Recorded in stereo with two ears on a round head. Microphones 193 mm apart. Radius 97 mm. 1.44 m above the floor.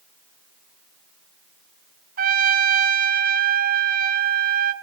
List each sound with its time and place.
2.2 s a trumpet: 40° right (ahead or behind), 1.4 m